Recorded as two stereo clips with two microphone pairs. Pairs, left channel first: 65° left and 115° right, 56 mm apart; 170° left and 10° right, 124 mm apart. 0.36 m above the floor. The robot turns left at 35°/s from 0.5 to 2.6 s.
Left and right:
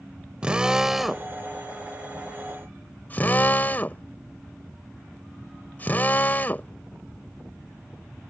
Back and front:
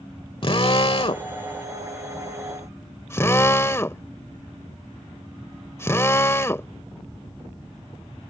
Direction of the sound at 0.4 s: Straight behind.